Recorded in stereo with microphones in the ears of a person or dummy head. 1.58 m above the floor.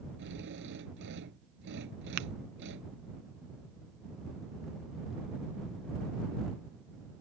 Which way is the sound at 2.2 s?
50° right (ahead or behind).